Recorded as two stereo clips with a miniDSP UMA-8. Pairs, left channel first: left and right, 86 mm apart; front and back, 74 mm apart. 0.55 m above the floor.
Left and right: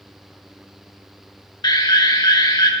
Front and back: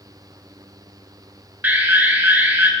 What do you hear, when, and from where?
1.6 s an alarm: 115° left, 1.8 m